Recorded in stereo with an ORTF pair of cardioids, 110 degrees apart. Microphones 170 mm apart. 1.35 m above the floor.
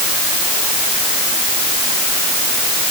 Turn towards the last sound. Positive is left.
No sound to turn to.